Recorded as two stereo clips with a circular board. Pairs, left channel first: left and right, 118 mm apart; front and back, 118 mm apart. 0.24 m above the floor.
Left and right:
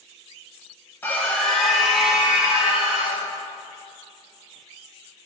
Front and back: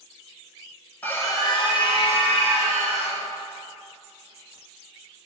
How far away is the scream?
About 1.0 m.